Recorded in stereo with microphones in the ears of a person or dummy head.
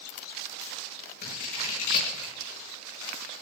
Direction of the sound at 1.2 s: 55° left (ahead or behind).